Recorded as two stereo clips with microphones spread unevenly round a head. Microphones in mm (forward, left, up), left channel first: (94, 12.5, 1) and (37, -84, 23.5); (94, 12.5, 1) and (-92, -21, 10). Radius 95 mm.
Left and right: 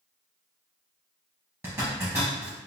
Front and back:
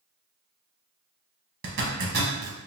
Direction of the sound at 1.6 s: 175° left.